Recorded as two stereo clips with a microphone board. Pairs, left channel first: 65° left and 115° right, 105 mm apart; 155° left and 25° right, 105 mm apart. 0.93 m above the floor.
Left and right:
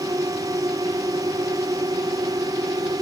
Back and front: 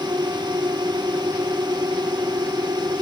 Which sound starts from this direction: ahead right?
A drone, at 0.0 s.